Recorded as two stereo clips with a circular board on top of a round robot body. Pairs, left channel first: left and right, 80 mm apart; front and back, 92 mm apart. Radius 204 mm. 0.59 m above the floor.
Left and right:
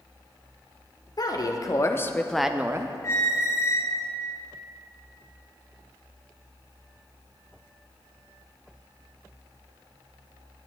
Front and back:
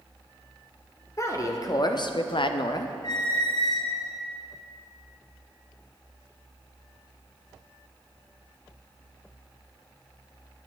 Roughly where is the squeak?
Ahead left.